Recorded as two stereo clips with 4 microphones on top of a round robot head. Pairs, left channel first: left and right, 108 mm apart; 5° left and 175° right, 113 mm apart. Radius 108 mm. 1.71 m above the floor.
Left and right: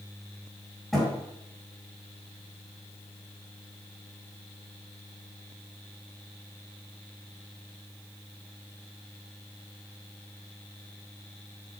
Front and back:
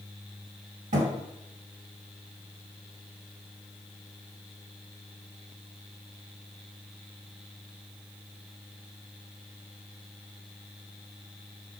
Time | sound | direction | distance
0.9 | a thud | straight behind | 2.5 m